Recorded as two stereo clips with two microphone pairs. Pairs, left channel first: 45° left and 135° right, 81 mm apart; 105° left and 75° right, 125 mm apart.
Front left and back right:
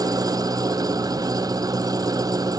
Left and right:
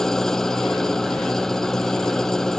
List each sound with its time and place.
0.0 s an engine running: 165° right